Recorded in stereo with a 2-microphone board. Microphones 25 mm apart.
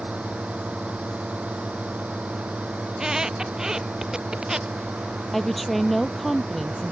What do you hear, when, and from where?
0.0 s a drone: 60° right (ahead or behind); by 6.9 s 75° right (ahead or behind)
2.9 s a squeak: 25° right (ahead or behind)
5.3 s a woman speaking: 5° left (ahead or behind)